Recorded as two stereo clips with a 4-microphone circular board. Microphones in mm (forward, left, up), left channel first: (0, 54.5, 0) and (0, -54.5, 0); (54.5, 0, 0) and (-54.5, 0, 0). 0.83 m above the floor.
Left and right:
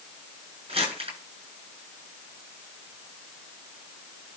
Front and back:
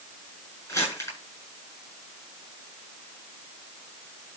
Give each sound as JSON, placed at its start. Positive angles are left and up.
{"t": 0.7, "sound": "crumpling", "azimuth_deg": -60, "distance_m": 8.5}